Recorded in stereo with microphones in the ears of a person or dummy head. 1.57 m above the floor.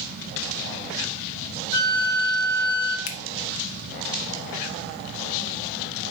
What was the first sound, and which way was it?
A flute, 80° left.